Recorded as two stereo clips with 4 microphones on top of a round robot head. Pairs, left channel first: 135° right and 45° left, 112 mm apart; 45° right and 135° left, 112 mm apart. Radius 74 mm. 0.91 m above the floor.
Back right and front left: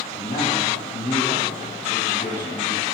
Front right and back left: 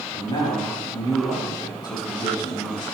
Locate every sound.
0.1 s a man speaking: 95° right, 6 m